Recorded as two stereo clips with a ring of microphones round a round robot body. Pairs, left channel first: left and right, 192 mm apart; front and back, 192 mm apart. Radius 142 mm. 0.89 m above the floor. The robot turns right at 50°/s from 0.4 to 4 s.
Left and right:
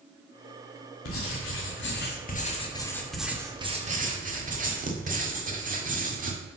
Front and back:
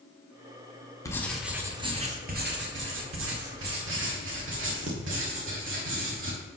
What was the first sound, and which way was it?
Writing, 75° left.